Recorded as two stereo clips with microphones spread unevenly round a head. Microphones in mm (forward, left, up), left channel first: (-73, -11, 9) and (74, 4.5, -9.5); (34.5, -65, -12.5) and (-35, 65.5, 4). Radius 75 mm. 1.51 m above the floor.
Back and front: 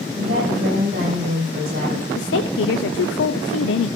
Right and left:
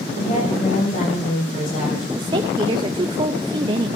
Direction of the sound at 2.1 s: Straight behind.